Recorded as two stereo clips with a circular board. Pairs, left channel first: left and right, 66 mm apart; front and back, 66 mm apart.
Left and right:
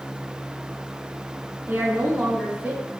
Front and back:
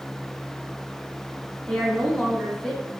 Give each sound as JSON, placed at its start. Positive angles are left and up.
{"t": 1.7, "sound": "a woman speaking", "azimuth_deg": -75, "distance_m": 1.4}